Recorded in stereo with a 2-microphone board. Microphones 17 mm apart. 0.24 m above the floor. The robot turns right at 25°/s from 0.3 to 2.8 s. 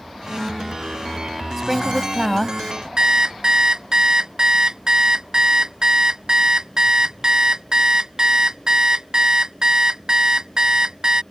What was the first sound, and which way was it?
A woman speaking, 15° right (ahead or behind).